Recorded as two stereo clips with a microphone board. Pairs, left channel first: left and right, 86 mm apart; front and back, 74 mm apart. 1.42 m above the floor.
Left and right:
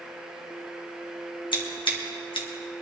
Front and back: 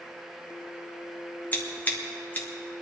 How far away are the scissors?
About 1.8 m.